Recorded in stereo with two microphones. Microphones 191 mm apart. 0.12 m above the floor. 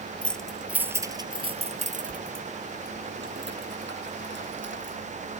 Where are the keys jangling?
5° left (ahead or behind); by 5.0 s 75° right (ahead or behind).